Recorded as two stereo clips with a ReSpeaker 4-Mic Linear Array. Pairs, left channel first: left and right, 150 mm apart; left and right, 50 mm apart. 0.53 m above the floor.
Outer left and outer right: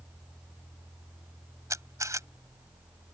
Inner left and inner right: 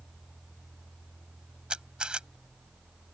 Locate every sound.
1.7 s a camera shutter: 20° right (ahead or behind)